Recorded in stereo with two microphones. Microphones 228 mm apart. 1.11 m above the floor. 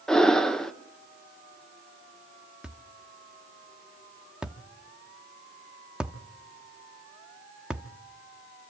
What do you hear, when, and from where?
0.1 s breathing: centre (ahead or behind), 0.8 m
2.6 s a thud: 5° right (ahead or behind), 0.8 m